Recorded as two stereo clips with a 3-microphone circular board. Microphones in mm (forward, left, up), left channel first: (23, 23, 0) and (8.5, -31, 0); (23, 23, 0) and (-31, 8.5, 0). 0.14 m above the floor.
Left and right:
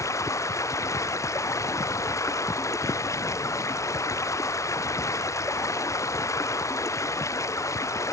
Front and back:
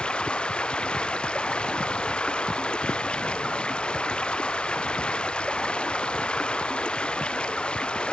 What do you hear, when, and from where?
0.0 s running water: 85° left